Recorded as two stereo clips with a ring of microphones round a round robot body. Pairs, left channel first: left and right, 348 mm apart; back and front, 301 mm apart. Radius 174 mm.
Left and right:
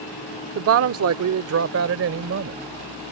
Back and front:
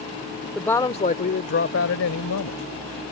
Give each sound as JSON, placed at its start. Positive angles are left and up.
{"t": 0.6, "sound": "a woman speaking", "azimuth_deg": -90}